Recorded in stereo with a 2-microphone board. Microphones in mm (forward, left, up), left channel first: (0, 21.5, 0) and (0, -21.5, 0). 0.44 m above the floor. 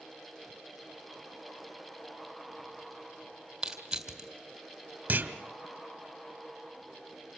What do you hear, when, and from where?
3.6 s crushing: 15° right (ahead or behind), 2.5 m
5.1 s a clunk: 45° right (ahead or behind), 1.2 m